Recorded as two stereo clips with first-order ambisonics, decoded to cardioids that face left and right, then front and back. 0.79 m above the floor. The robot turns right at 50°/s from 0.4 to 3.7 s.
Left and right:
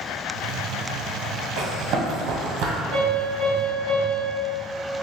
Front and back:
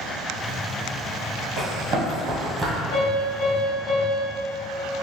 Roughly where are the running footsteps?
Behind right.